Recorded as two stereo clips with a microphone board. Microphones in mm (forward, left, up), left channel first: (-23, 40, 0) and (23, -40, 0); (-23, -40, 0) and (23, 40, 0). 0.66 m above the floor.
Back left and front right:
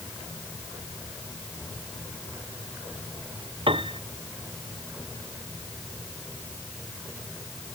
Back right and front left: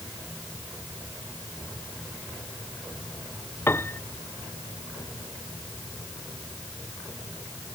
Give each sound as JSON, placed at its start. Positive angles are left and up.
{"t": 3.7, "sound": "a piano", "azimuth_deg": -55}